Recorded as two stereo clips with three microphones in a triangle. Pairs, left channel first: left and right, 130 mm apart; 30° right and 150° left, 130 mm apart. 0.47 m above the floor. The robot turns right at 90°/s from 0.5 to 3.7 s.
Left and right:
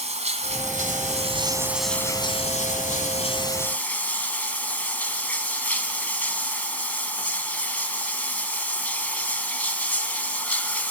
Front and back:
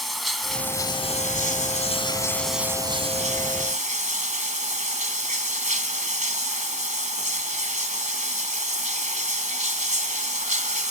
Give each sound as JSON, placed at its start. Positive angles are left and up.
{"t": 0.0, "sound": "running water", "azimuth_deg": -120, "distance_m": 2.5}